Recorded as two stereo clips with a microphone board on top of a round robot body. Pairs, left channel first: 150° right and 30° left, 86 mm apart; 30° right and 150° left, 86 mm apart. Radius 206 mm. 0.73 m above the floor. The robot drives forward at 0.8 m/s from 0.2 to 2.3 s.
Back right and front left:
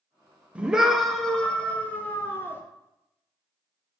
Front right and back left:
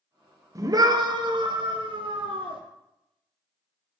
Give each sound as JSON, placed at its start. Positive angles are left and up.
{"t": 0.6, "sound": "a scream", "azimuth_deg": 105, "distance_m": 1.5}